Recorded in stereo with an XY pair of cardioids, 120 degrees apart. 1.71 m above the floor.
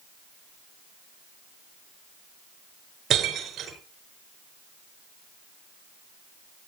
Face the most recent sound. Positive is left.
turn(degrees=-50)